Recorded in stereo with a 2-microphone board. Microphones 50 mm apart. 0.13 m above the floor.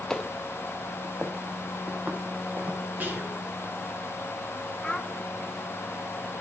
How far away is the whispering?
About 2.5 m.